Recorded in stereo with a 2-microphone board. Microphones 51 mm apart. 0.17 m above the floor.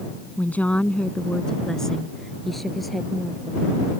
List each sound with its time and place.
0.4 s a woman speaking: 35° left (ahead or behind); by 3.8 s 5° right (ahead or behind)